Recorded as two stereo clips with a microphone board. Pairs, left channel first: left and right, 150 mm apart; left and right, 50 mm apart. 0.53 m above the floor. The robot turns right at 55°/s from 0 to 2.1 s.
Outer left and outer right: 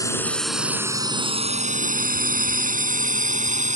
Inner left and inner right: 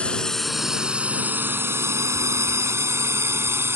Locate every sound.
0.0 s a drone: 25° left (ahead or behind); by 3.8 s 55° right (ahead or behind)